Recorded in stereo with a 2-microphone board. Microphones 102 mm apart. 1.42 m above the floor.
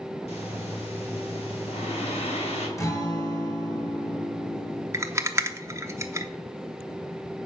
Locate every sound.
0.3 s breathing: 80° left, 2.5 m
2.8 s a guitar: 30° left (ahead or behind), 2.0 m
4.9 s a rattle: 25° right (ahead or behind), 0.8 m